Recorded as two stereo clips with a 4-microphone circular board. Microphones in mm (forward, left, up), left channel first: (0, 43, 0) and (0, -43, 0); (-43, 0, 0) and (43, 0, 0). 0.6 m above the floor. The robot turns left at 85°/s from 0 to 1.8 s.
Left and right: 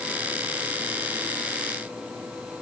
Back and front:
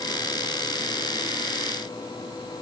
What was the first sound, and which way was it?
Only background noise.